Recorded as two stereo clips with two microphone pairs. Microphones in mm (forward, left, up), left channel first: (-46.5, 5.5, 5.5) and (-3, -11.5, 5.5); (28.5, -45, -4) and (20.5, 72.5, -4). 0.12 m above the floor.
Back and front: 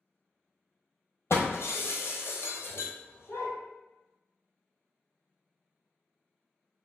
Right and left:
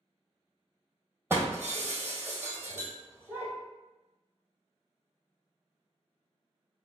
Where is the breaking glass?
165° left, 1.0 m.